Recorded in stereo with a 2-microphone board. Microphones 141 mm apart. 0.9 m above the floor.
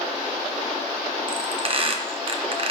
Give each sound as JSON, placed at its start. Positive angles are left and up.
{"t": 1.3, "sound": "a squeak", "side_deg": -40, "distance_m": 0.6}